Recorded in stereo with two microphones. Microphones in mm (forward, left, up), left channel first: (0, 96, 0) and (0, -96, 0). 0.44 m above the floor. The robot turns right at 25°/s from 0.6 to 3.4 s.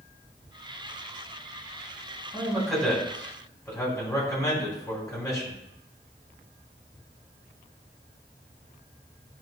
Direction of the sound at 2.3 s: 10° right (ahead or behind).